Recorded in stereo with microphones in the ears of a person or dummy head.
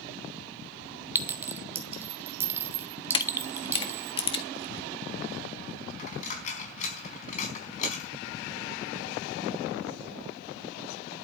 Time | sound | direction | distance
1.1 | a clink | 10° right (ahead or behind) | 1.6 m
3.1 | a camera shutter | 35° left (ahead or behind) | 1.7 m
6.0 | a dropped coin | 40° left (ahead or behind) | 4.5 m